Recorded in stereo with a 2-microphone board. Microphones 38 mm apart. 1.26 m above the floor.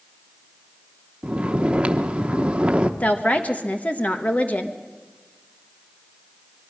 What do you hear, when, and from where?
1.2 s snoring: 30° right (ahead or behind), 0.9 m
3.0 s a woman speaking: 35° left (ahead or behind), 1.2 m